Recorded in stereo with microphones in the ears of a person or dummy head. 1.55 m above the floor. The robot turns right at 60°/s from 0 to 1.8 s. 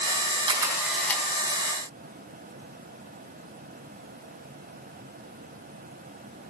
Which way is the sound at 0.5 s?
30° right (ahead or behind).